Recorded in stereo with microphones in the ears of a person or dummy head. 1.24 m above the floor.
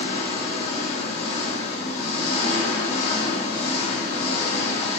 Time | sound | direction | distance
0.0 | an engine running | 40° left (ahead or behind) | 1.7 m